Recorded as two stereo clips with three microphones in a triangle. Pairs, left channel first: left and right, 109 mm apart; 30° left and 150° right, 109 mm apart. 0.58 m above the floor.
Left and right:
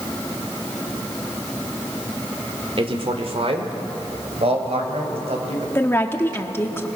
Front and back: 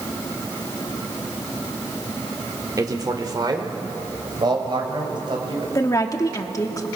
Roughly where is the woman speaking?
Ahead left.